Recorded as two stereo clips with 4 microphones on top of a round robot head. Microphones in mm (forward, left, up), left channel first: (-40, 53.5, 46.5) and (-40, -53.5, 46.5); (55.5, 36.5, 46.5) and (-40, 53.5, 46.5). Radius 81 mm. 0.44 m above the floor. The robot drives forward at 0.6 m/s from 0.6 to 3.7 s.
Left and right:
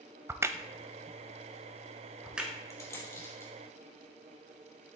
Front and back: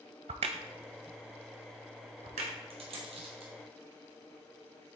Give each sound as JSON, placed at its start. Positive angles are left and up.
{"t": 0.3, "sound": "a crack", "azimuth_deg": -155, "distance_m": 0.6}
{"t": 2.7, "sound": "a dropped coin", "azimuth_deg": 150, "distance_m": 2.5}